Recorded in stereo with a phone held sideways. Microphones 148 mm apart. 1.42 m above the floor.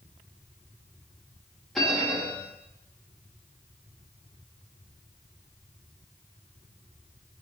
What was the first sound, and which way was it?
A bell, centre (ahead or behind).